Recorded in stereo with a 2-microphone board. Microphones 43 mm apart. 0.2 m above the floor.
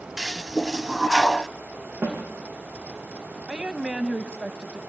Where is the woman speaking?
20° right (ahead or behind), 1.1 m.